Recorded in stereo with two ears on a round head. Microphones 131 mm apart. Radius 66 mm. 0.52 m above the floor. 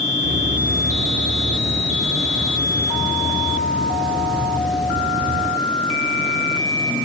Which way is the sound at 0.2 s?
75° right (ahead or behind).